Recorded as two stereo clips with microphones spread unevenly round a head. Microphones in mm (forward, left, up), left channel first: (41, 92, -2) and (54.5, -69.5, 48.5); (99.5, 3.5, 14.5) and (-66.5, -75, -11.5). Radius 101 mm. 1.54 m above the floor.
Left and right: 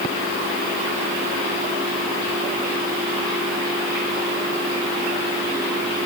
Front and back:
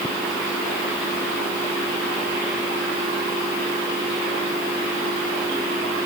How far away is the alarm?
I don't hear an alarm.